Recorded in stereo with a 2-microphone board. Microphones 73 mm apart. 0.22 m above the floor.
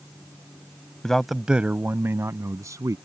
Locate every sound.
1.0 s a man speaking: 10° left (ahead or behind); by 3.0 s 50° right (ahead or behind)